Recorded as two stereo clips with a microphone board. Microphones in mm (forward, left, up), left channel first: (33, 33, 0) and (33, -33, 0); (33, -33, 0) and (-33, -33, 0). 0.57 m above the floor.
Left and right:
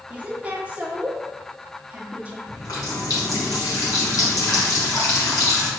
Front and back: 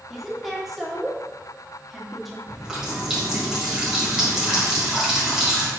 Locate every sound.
0.1 s a woman speaking: 95° right, 0.9 m
2.5 s a running tap: 100° left, 1.7 m